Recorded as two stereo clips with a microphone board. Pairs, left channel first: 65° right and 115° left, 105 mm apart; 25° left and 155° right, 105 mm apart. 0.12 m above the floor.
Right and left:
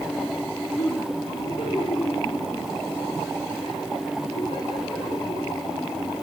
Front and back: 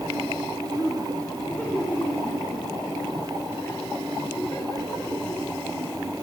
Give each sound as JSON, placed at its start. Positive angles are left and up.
{"t": 0.8, "sound": "laughter", "azimuth_deg": -55, "distance_m": 7.5}